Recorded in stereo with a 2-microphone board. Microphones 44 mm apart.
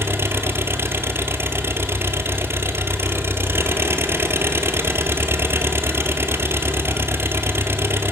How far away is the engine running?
About 1.3 m.